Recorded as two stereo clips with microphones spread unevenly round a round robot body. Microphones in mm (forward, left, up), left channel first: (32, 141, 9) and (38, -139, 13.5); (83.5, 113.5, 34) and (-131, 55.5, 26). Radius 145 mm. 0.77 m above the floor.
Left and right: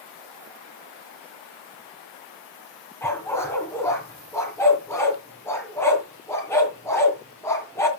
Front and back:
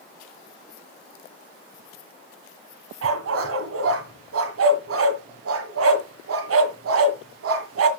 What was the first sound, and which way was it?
A dog barking, 175° left.